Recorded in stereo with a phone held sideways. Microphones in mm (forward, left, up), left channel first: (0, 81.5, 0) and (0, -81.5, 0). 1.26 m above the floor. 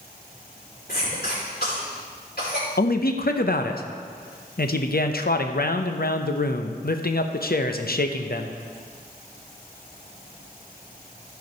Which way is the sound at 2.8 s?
70° left (ahead or behind).